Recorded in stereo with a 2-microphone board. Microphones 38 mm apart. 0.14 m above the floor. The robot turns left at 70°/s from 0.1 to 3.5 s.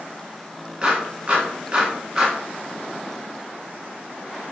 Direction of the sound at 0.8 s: 20° right (ahead or behind).